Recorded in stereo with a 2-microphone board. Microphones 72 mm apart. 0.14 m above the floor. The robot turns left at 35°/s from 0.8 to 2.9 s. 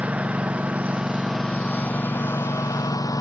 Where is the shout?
I don't hear a shout.